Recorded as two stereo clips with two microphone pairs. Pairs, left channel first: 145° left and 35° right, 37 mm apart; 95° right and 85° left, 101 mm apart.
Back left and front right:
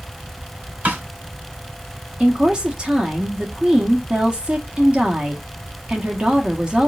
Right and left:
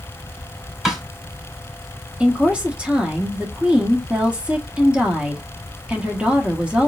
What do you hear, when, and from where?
0.8 s a snare drum: straight ahead, 2.5 m
2.2 s a woman speaking: 15° left, 1.2 m